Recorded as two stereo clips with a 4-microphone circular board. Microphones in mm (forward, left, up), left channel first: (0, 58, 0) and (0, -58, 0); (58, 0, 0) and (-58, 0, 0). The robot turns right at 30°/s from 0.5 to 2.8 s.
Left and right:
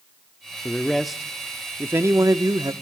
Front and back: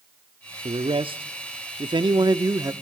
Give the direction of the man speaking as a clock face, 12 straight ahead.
6 o'clock.